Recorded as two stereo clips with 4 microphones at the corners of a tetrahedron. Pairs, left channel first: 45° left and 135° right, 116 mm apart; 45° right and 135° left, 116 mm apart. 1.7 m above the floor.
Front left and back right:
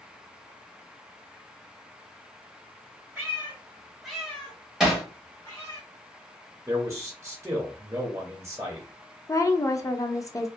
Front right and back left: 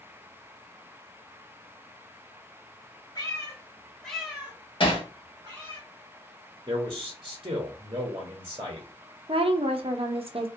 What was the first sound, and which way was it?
A cat meowing, 70° right.